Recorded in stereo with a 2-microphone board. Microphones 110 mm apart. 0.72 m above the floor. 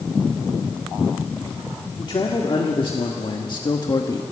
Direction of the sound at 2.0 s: 50° left (ahead or behind).